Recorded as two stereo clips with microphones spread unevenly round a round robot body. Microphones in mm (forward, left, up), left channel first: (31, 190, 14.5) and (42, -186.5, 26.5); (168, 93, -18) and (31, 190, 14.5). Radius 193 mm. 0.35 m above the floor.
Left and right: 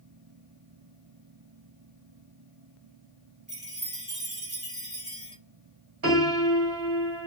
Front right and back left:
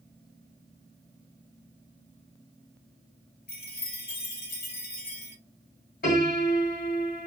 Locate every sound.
3.5 s a chime: 15° right, 1.5 m
6.0 s a piano: 40° right, 2 m